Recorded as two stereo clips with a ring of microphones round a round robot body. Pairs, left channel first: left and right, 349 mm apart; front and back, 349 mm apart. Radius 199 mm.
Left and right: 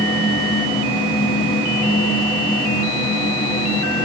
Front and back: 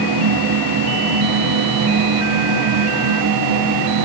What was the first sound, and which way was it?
Only background noise.